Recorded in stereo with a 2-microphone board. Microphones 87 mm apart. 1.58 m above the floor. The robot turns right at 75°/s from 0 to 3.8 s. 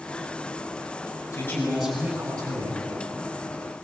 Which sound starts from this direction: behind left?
A man speaking, at 1.3 s.